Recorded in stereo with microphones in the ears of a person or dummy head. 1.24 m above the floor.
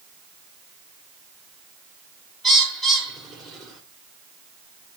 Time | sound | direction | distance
2.4 | a bird | centre (ahead or behind) | 2 m